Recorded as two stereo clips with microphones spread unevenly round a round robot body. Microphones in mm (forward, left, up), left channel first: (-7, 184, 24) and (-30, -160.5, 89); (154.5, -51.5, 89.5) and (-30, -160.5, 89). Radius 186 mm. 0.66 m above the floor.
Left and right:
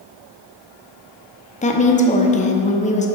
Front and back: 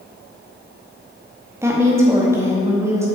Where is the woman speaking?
135° left, 0.7 m.